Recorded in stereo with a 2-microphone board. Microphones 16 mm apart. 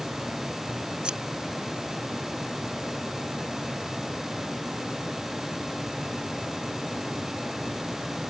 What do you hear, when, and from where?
1.0 s scissors: 80° right